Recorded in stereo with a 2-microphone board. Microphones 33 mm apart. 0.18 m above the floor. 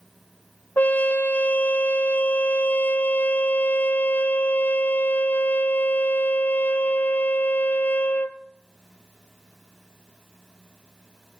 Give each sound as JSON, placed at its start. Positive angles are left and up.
{"t": 0.8, "sound": "a trumpet", "side_deg": 65, "distance_m": 0.8}